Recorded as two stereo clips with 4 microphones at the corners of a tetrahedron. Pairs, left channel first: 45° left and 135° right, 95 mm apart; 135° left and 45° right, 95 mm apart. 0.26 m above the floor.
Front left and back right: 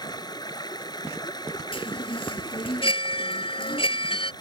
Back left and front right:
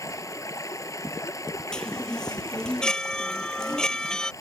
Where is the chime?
50° left.